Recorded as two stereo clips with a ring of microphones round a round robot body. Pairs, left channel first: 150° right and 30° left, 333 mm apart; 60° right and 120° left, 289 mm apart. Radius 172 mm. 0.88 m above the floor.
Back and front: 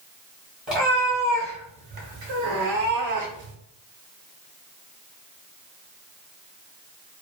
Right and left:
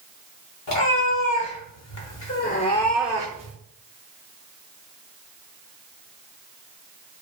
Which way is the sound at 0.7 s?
60° right.